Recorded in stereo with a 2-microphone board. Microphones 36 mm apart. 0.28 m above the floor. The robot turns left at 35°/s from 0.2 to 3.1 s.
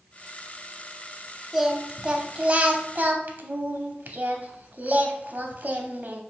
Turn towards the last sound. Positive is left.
turn(degrees=-75)